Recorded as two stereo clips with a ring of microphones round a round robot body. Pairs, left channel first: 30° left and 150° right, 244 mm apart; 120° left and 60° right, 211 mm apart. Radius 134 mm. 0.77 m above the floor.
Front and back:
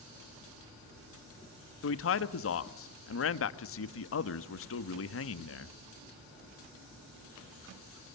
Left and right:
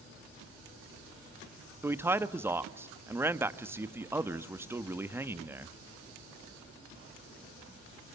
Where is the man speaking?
20° left, 1.4 m.